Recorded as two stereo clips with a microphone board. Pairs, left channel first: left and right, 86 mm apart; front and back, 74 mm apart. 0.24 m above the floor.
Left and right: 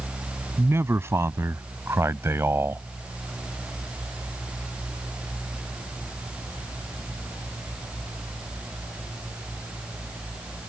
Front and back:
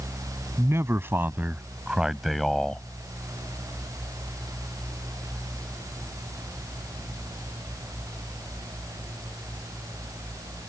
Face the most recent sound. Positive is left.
turn(degrees=-60)